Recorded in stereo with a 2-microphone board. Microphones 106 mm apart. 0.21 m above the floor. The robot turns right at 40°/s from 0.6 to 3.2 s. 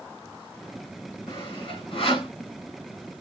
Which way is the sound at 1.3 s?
50° left (ahead or behind).